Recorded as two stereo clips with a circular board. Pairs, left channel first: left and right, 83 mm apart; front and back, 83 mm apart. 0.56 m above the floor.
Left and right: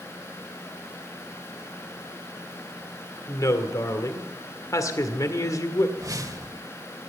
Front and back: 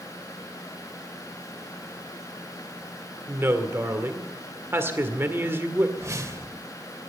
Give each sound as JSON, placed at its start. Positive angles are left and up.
{"t": 3.3, "sound": "a woman speaking", "azimuth_deg": 125, "distance_m": 1.9}
{"t": 6.0, "sound": "a whoosh", "azimuth_deg": -130, "distance_m": 1.6}